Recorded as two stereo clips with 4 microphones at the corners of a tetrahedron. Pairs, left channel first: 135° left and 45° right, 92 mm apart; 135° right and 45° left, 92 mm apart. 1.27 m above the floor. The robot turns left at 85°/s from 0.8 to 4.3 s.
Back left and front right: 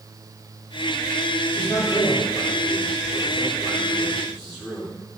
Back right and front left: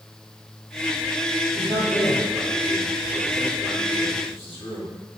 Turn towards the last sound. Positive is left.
turn(degrees=-140)